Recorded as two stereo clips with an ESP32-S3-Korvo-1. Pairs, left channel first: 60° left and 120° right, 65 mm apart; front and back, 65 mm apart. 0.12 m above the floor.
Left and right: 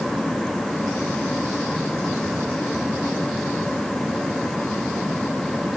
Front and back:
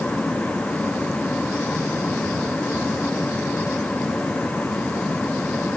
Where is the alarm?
No alarm in this recording.